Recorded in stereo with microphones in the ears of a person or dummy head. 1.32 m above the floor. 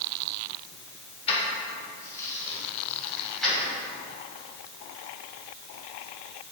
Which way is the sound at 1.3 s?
40° left (ahead or behind).